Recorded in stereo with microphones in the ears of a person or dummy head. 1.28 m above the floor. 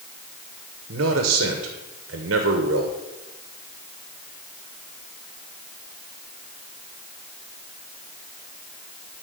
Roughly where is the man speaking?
Right.